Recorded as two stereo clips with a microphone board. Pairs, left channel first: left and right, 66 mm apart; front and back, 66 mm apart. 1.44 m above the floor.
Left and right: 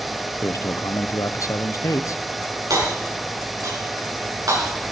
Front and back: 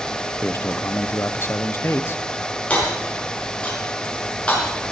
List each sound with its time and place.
0.4 s a man speaking: 55° left, 0.7 m
2.7 s hammering: 70° right, 6.5 m